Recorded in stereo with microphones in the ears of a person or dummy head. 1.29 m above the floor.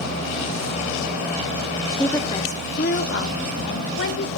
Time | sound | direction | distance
1.9 | a woman speaking | 5° right (ahead or behind) | 0.5 m